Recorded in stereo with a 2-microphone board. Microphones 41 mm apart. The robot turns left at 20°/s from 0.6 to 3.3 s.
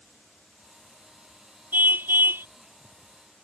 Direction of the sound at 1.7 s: 50° right (ahead or behind).